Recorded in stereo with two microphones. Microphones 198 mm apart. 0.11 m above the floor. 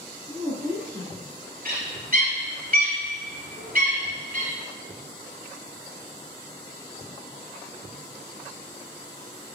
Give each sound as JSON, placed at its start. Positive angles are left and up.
{"t": 0.3, "sound": "a woman speaking", "side_deg": -25, "distance_m": 1.8}
{"t": 1.6, "sound": "a bird", "side_deg": -45, "distance_m": 1.5}